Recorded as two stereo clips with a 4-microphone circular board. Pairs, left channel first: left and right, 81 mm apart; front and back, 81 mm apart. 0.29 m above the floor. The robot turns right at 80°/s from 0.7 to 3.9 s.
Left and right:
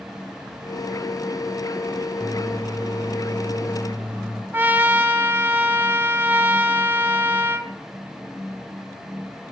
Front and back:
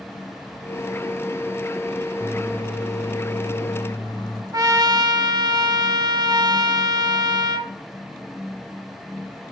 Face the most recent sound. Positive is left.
turn(degrees=-150)